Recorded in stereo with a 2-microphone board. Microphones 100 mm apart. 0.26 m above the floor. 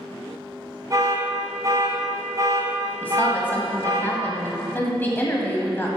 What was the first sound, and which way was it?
An alarm, 35° right (ahead or behind).